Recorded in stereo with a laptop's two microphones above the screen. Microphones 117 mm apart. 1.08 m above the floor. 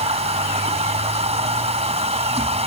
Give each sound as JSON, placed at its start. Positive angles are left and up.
{"t": 0.0, "sound": "a machine running", "side_deg": -65}